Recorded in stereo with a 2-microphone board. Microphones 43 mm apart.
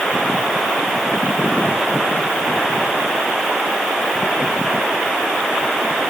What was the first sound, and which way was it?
Only background noise.